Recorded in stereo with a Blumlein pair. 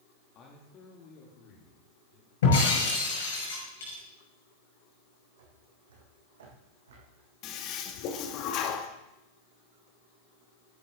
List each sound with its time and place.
0.3 s a man speaking: 30° left, 1.9 m; by 2.3 s 40° left, 3.5 m
2.4 s breaking glass: 60° left, 6 m
5.4 s footsteps: 60° right, 4 m
7.4 s a toilet flushing: 35° left, 1.4 m